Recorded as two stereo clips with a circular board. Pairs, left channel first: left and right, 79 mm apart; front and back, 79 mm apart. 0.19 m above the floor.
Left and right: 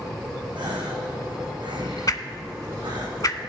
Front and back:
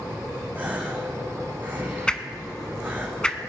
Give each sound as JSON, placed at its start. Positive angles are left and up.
{"t": 0.6, "sound": "a gasp", "azimuth_deg": -110, "distance_m": 2.5}
{"t": 2.1, "sound": "a whoosh", "azimuth_deg": 75, "distance_m": 0.7}